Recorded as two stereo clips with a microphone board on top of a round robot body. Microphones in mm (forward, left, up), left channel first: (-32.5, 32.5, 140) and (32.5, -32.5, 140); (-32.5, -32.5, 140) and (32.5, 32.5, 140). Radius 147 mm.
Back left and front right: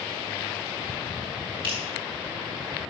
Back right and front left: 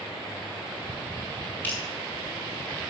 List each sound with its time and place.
1.6 s dripping: 65° right, 3.5 m